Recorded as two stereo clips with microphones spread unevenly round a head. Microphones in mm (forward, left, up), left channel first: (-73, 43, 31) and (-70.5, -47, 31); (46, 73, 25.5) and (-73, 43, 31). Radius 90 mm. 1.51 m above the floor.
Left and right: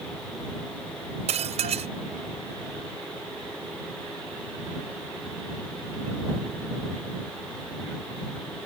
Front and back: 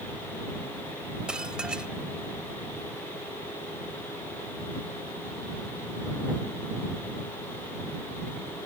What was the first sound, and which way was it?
Dishes clattering, 80° right.